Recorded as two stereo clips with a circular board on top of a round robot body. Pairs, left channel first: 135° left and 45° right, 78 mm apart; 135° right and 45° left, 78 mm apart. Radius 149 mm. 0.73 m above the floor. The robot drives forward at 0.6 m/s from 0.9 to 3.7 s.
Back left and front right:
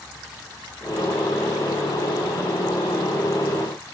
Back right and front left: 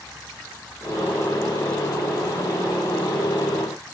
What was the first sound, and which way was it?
Only background noise.